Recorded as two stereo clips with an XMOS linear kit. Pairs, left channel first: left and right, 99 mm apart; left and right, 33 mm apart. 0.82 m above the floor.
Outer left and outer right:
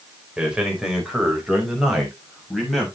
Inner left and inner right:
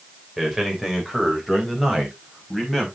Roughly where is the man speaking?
Centre.